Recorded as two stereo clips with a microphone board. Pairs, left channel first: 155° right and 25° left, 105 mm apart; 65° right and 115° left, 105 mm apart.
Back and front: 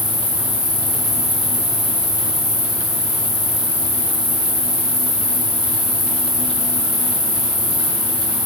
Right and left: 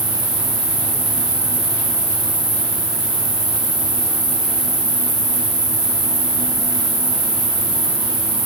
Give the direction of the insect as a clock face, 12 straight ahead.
9 o'clock.